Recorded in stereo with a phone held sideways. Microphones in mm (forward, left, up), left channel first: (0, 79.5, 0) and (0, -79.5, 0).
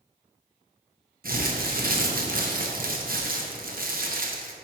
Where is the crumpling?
65° right (ahead or behind), 0.7 m.